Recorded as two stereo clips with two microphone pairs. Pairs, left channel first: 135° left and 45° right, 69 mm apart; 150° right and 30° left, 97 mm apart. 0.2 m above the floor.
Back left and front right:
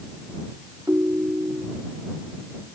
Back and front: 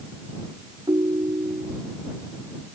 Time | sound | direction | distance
0.9 | a ringtone | straight ahead | ?